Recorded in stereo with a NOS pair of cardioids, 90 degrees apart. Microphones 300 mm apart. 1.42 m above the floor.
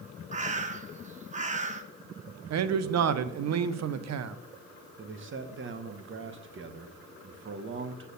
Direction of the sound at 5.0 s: 40° right.